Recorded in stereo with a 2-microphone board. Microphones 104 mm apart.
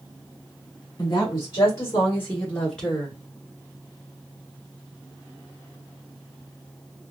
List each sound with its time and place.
1.0 s a woman speaking: 35° left (ahead or behind), 1.5 m; by 3.2 s centre (ahead or behind), 1.3 m